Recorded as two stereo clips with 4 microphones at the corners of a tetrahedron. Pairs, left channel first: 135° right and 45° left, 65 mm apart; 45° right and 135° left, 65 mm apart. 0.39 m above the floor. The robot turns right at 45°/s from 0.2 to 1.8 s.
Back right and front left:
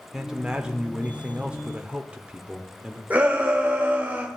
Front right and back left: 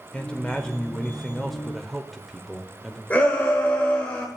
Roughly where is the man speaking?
Ahead.